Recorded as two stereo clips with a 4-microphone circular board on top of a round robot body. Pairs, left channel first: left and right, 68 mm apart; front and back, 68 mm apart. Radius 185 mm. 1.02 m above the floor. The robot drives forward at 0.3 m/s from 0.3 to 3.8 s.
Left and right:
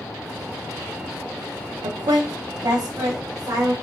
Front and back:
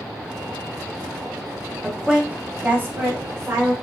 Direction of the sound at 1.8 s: 95° right.